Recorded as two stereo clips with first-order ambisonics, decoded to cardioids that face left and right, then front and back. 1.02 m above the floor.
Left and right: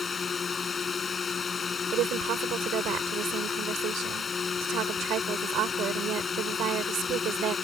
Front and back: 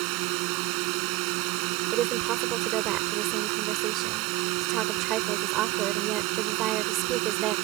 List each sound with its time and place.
0.0 s a drone: 160° left
1.9 s a woman speaking: 135° right